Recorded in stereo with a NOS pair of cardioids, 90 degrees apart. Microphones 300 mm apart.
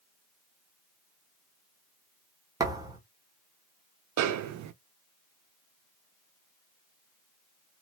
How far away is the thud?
About 1.2 m.